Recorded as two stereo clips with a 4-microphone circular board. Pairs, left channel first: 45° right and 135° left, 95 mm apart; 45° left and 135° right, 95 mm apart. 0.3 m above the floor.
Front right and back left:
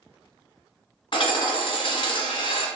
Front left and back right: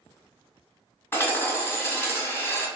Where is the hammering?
20° right, 1.1 m.